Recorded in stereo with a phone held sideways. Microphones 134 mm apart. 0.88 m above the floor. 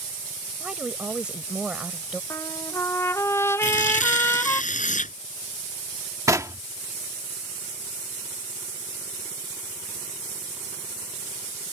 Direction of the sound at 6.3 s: 25° right (ahead or behind).